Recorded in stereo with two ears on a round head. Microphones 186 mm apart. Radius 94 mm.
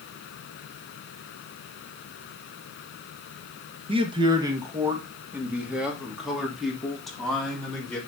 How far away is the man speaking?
About 1.6 m.